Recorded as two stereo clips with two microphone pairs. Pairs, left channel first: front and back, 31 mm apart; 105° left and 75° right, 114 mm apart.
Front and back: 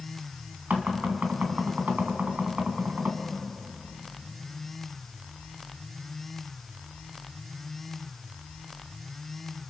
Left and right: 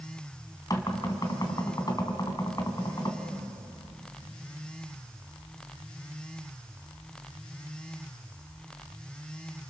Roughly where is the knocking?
Behind.